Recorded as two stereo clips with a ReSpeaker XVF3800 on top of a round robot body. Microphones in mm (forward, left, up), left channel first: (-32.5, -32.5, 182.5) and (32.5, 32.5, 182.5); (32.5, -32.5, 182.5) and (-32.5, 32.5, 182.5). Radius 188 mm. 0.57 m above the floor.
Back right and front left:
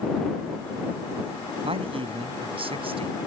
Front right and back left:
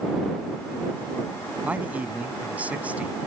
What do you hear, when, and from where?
1.6 s a man speaking: 60° left